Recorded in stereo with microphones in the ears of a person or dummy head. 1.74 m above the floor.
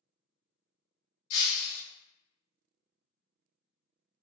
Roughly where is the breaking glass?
Left.